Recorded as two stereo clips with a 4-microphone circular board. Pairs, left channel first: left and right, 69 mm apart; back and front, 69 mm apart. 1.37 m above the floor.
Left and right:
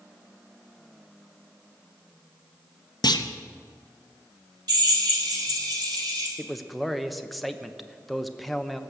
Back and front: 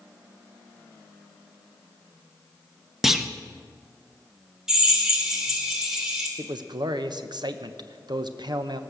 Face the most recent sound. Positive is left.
turn(degrees=0)